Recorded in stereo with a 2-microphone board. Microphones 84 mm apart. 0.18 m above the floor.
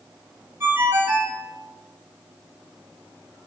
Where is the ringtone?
30° right (ahead or behind), 1.7 m.